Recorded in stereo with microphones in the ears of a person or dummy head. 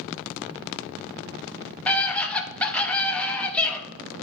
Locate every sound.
1.9 s a scream: 10° left (ahead or behind), 1.3 m